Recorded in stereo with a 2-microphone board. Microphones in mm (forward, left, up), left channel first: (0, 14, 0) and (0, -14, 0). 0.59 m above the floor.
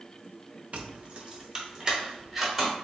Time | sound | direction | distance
0.7 | keys jangling | 50° right (ahead or behind) | 0.6 m